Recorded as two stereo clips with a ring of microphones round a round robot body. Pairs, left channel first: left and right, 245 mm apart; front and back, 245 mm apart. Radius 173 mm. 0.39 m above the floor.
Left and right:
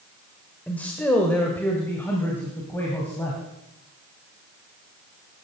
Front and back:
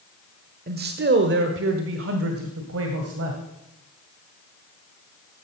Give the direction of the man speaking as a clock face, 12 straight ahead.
6 o'clock.